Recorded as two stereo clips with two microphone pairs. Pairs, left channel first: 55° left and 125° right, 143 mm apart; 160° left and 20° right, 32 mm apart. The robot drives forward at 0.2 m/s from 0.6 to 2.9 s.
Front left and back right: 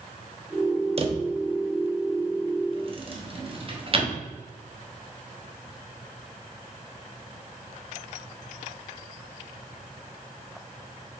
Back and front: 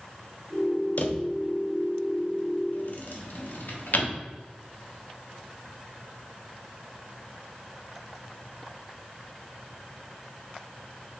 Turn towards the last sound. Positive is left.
turn(degrees=-175)